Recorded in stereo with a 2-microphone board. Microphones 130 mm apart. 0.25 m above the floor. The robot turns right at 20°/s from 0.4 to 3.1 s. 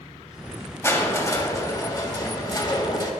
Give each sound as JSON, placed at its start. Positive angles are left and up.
{"t": 0.8, "sound": "crushing", "azimuth_deg": 40, "distance_m": 1.7}